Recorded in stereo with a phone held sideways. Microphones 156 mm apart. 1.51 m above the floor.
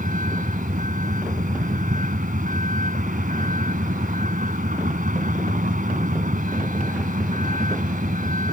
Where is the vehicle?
55° right (ahead or behind).